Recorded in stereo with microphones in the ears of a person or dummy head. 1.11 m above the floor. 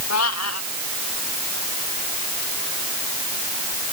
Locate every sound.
0.1 s a cat meowing: 85° left